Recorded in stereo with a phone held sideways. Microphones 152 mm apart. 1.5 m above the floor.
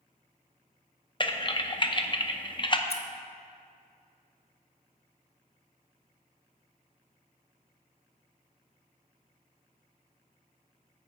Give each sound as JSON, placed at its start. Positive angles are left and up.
{"t": 1.2, "sound": "typing on a keyboard", "side_deg": 35, "distance_m": 0.6}
{"t": 2.9, "sound": "scissors", "side_deg": 45, "distance_m": 0.9}